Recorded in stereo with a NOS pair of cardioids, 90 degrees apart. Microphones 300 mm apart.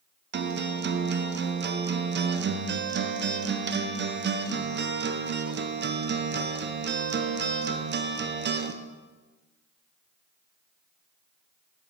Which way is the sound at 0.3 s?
35° right.